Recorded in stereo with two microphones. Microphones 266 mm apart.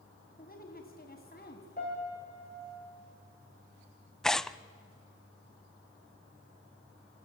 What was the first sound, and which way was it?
A woman speaking, 35° left (ahead or behind).